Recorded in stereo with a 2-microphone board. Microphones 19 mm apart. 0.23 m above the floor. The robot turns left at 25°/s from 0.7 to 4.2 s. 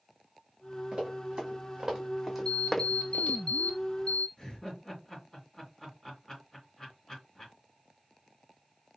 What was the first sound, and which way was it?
Running footsteps, 65° right (ahead or behind).